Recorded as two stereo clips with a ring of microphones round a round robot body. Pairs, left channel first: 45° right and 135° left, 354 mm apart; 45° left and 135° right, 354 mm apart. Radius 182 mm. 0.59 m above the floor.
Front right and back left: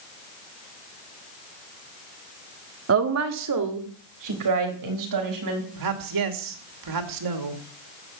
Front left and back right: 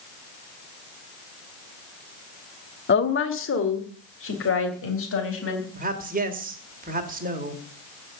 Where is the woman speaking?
95° left, 1.4 m; by 5.7 s 100° left, 5 m.